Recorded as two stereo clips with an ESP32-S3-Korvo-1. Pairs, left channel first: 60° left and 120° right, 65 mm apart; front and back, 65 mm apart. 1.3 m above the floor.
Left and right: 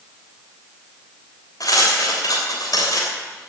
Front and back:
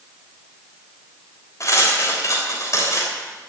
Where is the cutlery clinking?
40° left, 3 m.